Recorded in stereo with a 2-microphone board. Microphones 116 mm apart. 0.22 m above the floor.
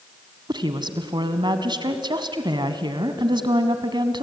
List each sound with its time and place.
0.5 s a woman speaking: 40° right (ahead or behind), 1.7 m